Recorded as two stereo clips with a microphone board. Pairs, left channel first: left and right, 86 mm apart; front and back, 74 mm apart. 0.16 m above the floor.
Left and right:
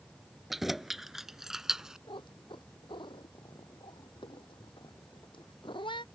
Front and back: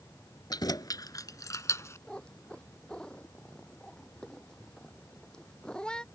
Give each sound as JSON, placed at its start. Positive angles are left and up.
{"t": 0.5, "sound": "keys jangling", "azimuth_deg": -5}
{"t": 2.1, "sound": "a cat meowing", "azimuth_deg": 80}